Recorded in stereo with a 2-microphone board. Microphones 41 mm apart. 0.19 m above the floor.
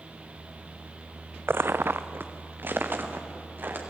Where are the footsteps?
65° right (ahead or behind), 0.6 m; by 3.8 s 50° right (ahead or behind), 4 m.